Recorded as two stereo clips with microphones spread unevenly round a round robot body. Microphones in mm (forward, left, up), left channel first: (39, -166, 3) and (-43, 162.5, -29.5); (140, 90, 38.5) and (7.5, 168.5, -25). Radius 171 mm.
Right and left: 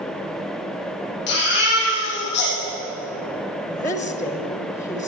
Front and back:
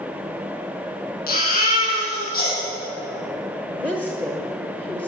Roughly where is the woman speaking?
Behind right.